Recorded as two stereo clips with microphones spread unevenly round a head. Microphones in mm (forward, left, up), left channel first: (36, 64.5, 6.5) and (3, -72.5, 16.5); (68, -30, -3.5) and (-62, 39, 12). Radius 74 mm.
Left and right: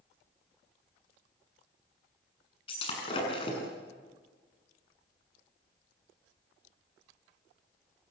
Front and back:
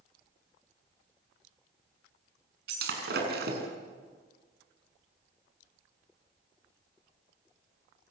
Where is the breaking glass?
135° left, 7 m.